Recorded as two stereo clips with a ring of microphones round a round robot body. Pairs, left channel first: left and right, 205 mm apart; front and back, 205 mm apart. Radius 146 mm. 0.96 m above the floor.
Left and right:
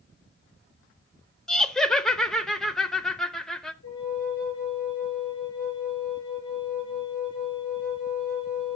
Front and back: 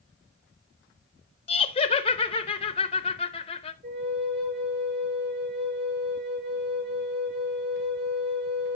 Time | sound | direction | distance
1.5 | laughter | 5° left | 0.6 m
3.8 | a flute | 145° left | 7.5 m